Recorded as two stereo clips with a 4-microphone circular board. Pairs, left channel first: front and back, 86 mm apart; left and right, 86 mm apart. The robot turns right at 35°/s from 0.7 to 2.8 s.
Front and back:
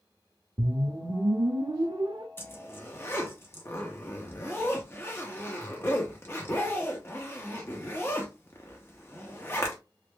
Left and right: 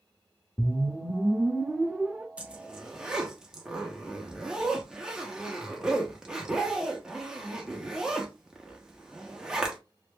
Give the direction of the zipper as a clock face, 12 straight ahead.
1 o'clock.